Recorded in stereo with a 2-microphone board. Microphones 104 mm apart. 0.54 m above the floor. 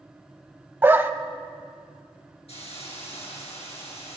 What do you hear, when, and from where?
0.8 s a dog barking: 20° right (ahead or behind), 0.6 m
2.5 s a hiss: 80° left, 3.5 m